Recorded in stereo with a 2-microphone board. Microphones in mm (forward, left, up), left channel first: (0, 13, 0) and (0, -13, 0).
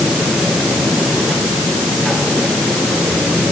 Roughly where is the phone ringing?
I don't hear a phone ringing.